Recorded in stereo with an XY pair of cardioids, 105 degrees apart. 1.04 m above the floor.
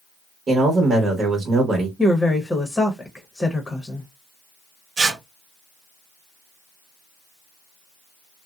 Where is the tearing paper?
50° right, 1.1 m.